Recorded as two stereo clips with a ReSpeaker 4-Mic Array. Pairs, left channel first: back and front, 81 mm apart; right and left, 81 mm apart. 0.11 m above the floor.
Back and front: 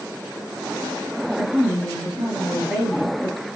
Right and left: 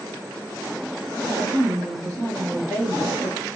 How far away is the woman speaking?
About 1.5 m.